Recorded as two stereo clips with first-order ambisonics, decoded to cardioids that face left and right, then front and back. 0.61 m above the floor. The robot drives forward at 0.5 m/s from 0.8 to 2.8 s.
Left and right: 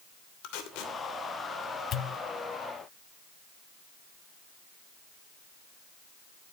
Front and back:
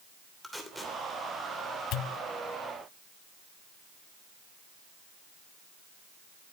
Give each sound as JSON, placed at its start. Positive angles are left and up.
{"t": 0.4, "sound": "tape being pulled", "azimuth_deg": 90, "distance_m": 2.5}
{"t": 1.9, "sound": "a pop", "azimuth_deg": 35, "distance_m": 0.6}